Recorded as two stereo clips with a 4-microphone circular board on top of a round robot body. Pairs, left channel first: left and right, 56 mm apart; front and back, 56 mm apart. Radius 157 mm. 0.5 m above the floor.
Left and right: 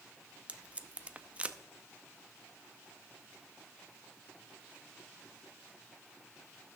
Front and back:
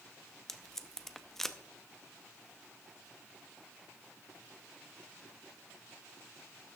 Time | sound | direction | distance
0.5 | tape being pulled | 75° right | 1.0 m